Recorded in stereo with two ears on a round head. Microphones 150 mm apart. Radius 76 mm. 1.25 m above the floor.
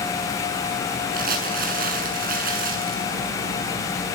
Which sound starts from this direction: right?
Crumpling, at 1.1 s.